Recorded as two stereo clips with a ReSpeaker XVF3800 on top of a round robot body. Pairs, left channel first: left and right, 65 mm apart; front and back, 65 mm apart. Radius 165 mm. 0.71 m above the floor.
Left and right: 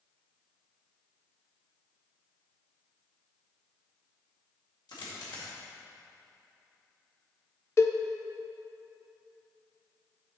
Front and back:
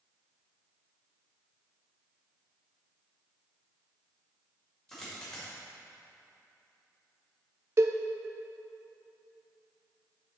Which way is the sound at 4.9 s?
80° left.